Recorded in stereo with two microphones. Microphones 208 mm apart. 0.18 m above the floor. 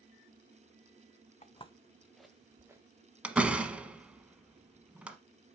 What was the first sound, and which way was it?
Footsteps, 35° left (ahead or behind).